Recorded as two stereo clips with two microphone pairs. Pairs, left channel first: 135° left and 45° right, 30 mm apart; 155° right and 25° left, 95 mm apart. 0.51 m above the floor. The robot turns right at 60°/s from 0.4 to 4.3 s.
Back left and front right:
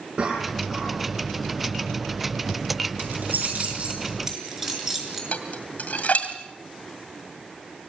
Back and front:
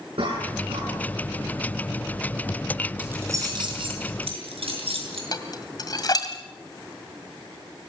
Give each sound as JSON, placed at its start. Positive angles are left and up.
{"t": 0.2, "sound": "a cough", "azimuth_deg": 10, "distance_m": 6.5}
{"t": 3.0, "sound": "keys jangling", "azimuth_deg": -50, "distance_m": 5.5}
{"t": 5.3, "sound": "dishes clattering", "azimuth_deg": 160, "distance_m": 2.0}